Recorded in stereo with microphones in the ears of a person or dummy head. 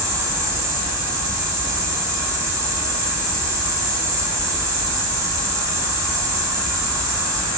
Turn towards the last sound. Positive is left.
turn(degrees=-15)  # may be behind; listen again after turning